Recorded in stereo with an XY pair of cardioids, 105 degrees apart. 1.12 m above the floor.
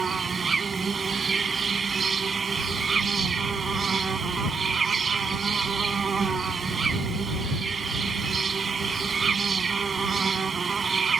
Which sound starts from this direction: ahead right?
An insect, at 0.0 s.